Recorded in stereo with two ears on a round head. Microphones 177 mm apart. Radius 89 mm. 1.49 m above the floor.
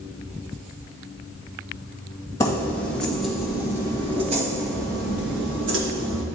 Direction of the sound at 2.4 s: 15° left (ahead or behind).